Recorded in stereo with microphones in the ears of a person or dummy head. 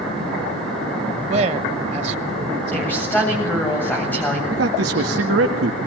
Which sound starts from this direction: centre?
A woman speaking, at 2.7 s.